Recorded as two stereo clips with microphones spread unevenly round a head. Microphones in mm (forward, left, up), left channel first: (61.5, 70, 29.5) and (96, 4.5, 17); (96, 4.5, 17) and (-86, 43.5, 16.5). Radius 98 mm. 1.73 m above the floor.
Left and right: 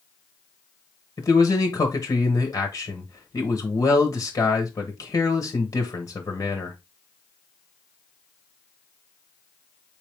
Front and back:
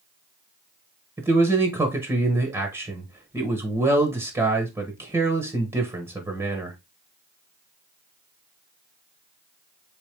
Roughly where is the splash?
I don't hear a splash.